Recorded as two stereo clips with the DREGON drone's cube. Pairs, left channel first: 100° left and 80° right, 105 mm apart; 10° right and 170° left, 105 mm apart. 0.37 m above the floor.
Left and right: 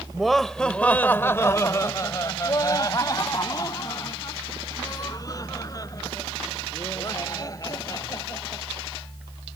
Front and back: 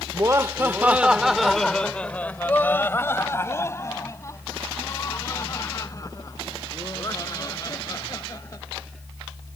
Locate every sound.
0.1 s laughter: 165° right; by 8.6 s 45° left